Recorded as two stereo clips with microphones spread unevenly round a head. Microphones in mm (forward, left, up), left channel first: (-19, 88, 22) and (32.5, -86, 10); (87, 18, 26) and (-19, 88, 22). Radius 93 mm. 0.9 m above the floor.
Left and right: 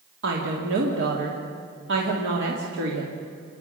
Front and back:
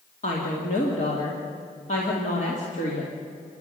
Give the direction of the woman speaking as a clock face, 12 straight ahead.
2 o'clock.